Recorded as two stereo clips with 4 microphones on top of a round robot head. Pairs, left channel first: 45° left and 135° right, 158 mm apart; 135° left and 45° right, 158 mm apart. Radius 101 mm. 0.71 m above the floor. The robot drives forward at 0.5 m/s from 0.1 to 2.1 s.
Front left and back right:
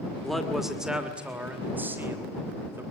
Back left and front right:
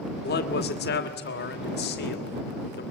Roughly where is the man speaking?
Behind left.